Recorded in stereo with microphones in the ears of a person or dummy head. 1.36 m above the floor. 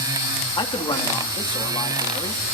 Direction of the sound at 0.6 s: 30° left (ahead or behind).